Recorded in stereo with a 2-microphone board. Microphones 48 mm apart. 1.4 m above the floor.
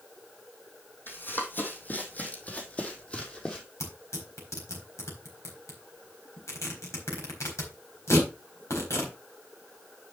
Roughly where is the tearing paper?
Left.